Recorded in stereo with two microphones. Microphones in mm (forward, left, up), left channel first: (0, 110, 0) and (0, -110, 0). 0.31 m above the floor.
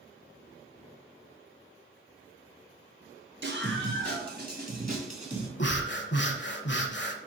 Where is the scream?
60° right (ahead or behind), 2.5 m; by 5.5 s 30° right (ahead or behind), 2.5 m.